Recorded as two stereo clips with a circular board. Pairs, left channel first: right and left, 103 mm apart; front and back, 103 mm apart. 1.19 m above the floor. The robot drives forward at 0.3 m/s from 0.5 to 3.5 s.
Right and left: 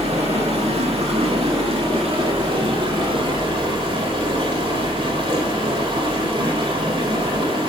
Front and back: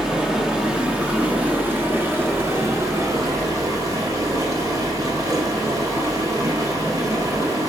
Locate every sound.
0.0 s running water: 100° left, 1.8 m; by 7.7 s 125° left, 2 m